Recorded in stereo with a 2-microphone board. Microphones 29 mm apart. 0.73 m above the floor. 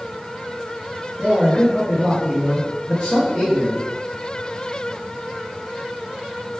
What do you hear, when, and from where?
1.2 s a man speaking: 25° left (ahead or behind), 0.9 m